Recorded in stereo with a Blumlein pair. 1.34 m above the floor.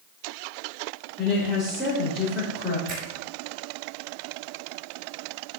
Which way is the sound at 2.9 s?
20° right.